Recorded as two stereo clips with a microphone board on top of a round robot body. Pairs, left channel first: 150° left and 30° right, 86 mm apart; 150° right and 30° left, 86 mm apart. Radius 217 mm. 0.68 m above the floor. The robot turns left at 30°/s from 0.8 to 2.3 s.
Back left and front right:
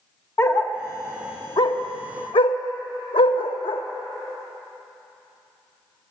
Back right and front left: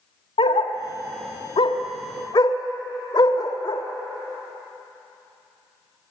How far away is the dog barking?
About 1.2 m.